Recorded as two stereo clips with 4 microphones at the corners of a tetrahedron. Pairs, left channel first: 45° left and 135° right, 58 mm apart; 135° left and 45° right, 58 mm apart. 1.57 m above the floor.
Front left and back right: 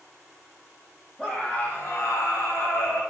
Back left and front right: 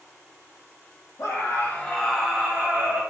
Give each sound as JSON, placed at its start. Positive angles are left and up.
{"t": 1.2, "sound": "a scream", "azimuth_deg": 120, "distance_m": 0.8}